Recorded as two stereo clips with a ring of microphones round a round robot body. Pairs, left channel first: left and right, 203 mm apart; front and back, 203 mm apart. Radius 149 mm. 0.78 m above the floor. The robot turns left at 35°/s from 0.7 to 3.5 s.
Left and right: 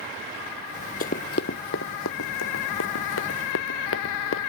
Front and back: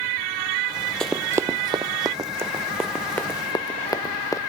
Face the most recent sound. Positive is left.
turn(degrees=75)